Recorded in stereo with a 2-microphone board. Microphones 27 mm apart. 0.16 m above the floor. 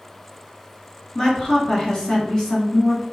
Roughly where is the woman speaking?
Left.